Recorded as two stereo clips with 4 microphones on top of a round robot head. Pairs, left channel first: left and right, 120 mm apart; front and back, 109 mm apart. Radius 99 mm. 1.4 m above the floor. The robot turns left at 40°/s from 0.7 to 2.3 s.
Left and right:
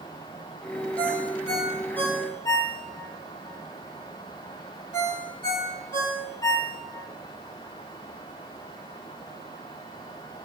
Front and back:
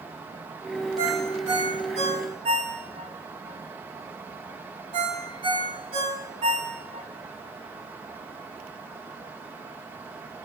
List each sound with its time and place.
1.0 s a ringtone: 155° right, 5 m; by 7.1 s 155° left, 5 m